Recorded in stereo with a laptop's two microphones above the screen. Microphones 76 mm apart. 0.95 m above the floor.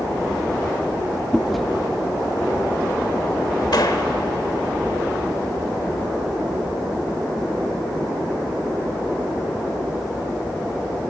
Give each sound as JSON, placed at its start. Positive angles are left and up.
{"t": 1.3, "sound": "chewing", "side_deg": 0, "distance_m": 0.9}
{"t": 3.7, "sound": "a gunshot", "side_deg": 60, "distance_m": 1.4}